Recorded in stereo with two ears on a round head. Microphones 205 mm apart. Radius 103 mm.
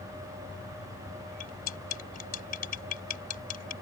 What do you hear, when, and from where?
1.4 s cutlery clinking: 40° left (ahead or behind)